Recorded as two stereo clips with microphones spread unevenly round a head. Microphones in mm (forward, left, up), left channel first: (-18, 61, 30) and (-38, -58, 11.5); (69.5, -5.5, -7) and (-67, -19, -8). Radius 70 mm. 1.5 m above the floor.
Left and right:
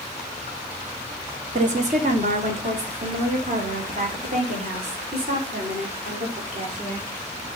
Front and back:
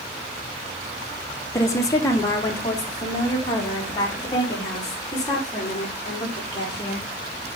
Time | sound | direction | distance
1.5 | a woman speaking | 65° right | 1.3 m